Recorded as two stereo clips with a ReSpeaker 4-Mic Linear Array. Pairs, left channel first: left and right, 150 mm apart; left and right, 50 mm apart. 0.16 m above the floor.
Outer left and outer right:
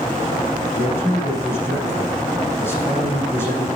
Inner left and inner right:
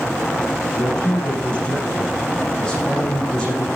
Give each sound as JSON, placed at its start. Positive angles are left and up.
{"t": 0.7, "sound": "a man speaking", "side_deg": 15, "distance_m": 6.5}